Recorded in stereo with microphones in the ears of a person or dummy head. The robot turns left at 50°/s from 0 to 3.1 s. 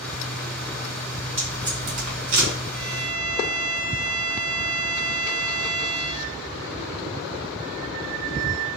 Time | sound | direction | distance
1.4 | tape being pulled | 10° right (ahead or behind) | 1.6 m
2.7 | a violin | 30° right (ahead or behind) | 1.2 m